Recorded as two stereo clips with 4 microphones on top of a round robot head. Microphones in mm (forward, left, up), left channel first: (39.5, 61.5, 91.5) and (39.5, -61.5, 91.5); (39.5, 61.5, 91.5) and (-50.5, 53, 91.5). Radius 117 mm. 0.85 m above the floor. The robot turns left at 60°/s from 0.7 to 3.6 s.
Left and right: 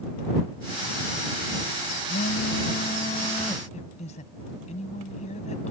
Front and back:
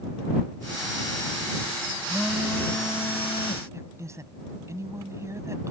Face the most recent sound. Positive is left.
turn(degrees=130)